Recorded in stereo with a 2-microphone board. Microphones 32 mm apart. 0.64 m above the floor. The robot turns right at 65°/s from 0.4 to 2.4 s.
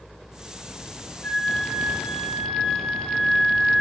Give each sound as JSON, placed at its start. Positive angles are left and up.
{"t": 1.2, "sound": "a flute", "azimuth_deg": 95, "distance_m": 0.7}